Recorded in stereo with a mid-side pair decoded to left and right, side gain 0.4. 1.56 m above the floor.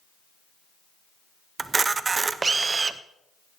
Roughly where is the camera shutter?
Ahead right.